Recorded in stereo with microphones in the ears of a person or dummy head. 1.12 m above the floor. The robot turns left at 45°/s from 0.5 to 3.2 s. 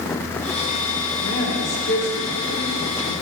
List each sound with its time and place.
1.2 s a woman speaking: 100° left, 1.5 m; by 3.1 s 15° left, 1.5 m